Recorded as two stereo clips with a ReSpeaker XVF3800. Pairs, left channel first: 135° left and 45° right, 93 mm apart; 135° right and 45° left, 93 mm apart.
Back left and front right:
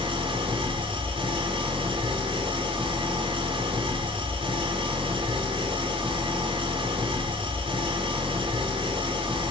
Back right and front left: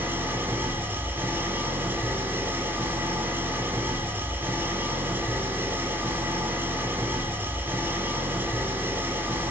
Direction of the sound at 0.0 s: 20° right.